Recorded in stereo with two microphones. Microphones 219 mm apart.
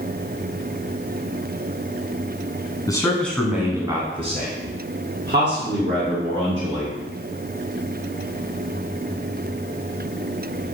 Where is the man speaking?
15° left (ahead or behind), 1.1 m; by 6.9 s 65° right (ahead or behind), 2.5 m.